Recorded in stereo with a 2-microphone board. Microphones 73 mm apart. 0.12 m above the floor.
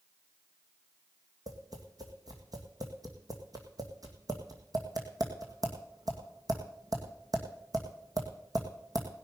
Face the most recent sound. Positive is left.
turn(degrees=-60)  # may be behind; listen again after turning